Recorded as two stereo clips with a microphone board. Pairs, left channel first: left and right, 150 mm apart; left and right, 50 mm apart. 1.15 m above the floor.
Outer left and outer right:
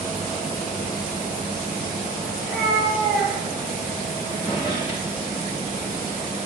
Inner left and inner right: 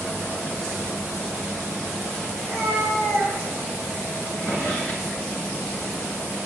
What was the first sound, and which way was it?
A cat meowing, 5° right (ahead or behind).